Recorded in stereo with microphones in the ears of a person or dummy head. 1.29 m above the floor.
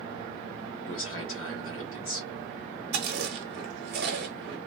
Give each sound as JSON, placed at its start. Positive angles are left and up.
{"t": 0.8, "sound": "a man speaking", "side_deg": 70, "distance_m": 1.3}
{"t": 2.9, "sound": "chewing", "side_deg": -55, "distance_m": 0.9}